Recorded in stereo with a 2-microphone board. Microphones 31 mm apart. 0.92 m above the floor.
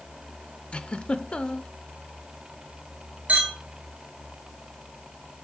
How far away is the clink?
About 3 m.